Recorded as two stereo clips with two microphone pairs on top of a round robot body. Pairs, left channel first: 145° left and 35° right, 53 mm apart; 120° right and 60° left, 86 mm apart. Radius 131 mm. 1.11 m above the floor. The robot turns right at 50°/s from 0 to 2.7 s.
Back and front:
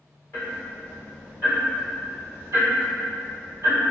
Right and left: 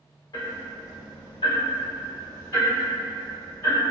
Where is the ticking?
160° right, 2.0 m; by 3.9 s 40° right, 2.0 m.